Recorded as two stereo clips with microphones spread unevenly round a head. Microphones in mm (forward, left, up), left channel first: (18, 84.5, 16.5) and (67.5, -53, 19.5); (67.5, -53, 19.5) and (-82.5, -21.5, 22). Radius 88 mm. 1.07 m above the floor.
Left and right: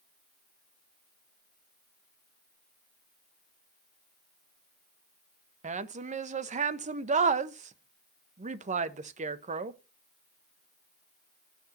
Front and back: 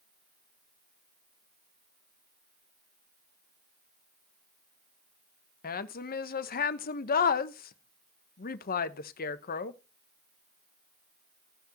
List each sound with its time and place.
5.6 s a woman speaking: 35° right, 0.9 m